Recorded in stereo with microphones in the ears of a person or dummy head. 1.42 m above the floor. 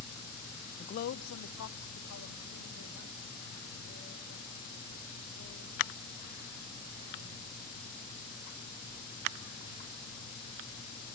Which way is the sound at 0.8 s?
25° left (ahead or behind).